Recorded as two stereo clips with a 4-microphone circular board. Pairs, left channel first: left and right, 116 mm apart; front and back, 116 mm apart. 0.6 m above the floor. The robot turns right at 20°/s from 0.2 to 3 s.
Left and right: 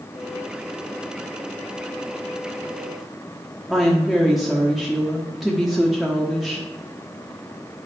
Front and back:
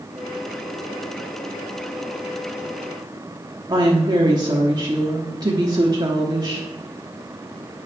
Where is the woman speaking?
Straight behind, 1.1 m.